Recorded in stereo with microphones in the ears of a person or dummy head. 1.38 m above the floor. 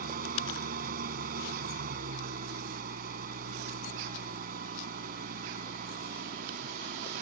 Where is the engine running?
50° right (ahead or behind).